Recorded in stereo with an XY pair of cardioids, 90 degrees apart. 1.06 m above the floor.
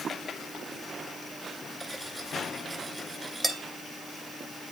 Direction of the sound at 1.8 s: 25° right.